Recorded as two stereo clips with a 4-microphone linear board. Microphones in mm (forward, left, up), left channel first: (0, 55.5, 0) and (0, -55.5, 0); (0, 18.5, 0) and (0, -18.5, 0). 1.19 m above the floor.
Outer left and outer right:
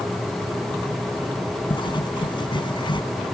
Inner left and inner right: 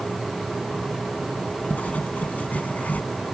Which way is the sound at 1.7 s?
45° left (ahead or behind).